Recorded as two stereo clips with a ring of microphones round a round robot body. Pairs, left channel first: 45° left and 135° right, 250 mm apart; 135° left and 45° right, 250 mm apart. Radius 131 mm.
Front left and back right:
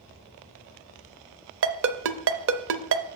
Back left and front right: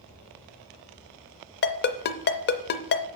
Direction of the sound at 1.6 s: 175° right.